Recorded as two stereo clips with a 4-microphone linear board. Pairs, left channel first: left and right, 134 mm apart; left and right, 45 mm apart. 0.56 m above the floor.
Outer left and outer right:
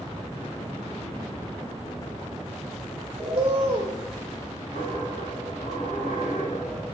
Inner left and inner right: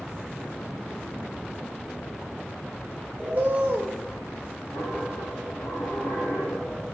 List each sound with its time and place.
3.2 s a bird: 45° right (ahead or behind), 2.5 m
4.7 s a dropped coin: 90° left, 4.5 m